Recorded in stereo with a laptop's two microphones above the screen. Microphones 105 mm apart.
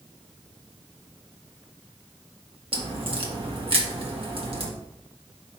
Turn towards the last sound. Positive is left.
turn(degrees=-60)  # may be behind; listen again after turning